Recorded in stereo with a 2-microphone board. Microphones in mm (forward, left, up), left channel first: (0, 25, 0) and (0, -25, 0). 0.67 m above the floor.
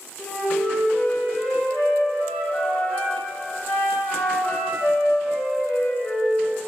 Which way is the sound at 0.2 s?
30° left (ahead or behind).